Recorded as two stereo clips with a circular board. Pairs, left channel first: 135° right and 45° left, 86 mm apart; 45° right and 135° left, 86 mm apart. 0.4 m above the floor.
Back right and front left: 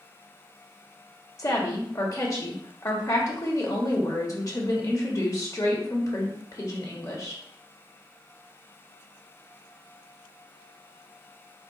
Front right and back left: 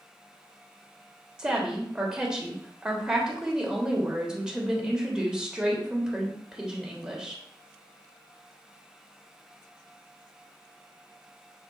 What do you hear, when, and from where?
1.4 s a woman speaking: 150° right, 1.0 m